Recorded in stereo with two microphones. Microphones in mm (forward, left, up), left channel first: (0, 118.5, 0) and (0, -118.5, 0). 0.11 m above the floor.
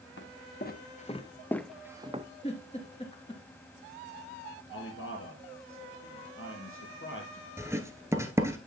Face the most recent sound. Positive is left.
turn(degrees=-10)  # may be behind; listen again after turning